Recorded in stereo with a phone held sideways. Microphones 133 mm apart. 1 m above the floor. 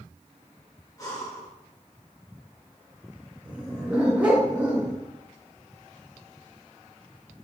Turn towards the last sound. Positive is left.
turn(degrees=-10)  # may be behind; listen again after turning